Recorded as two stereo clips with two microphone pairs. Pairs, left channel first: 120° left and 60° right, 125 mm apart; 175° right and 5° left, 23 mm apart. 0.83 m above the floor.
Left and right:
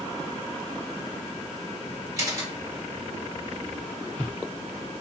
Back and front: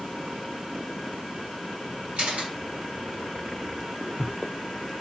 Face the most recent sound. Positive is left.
turn(degrees=0)